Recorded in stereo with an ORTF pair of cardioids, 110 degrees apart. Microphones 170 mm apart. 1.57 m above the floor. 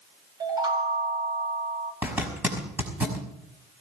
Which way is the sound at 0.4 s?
25° right.